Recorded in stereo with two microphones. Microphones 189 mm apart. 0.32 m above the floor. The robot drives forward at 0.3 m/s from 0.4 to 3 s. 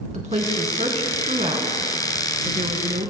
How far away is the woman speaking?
About 2.5 m.